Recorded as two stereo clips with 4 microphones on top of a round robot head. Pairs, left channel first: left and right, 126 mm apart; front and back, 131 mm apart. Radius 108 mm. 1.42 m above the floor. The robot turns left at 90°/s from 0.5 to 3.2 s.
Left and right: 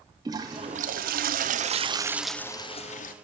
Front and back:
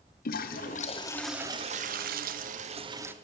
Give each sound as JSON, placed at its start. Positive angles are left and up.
{"t": 0.2, "sound": "a toilet flushing", "azimuth_deg": -20, "distance_m": 0.5}